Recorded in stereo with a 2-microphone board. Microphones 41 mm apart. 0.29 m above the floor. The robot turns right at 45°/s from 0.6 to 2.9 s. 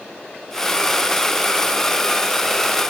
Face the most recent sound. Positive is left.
No sound to turn to.